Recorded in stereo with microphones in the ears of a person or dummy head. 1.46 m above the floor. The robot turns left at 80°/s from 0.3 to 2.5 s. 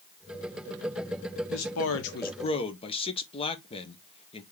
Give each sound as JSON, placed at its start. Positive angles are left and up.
{"t": 1.5, "sound": "a man speaking", "azimuth_deg": 110, "distance_m": 1.1}